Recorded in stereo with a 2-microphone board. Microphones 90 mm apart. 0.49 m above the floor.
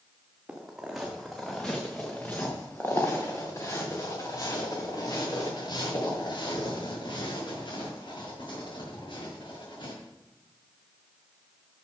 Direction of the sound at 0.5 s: 10° right (ahead or behind).